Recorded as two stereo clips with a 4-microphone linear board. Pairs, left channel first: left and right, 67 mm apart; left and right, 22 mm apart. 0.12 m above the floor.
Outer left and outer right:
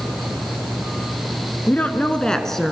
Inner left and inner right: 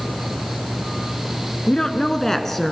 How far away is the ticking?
I don't hear ticking.